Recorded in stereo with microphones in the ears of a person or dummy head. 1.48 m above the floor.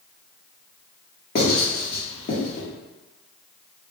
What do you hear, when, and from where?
1.4 s writing: 50° left (ahead or behind), 0.9 m